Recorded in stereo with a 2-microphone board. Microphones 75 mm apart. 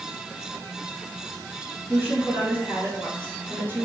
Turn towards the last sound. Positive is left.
turn(degrees=-25)  # may be behind; listen again after turning